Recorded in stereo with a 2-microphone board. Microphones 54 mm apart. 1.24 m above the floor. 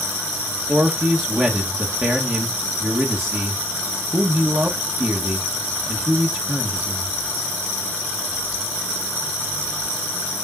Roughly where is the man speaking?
Right.